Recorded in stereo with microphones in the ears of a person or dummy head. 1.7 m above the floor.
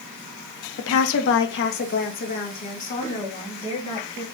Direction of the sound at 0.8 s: 75° left (ahead or behind).